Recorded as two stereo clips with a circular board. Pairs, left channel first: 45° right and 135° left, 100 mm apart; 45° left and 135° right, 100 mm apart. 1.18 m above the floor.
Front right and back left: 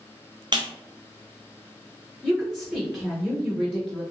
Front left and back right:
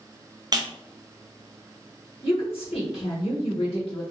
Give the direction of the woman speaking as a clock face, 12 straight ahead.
10 o'clock.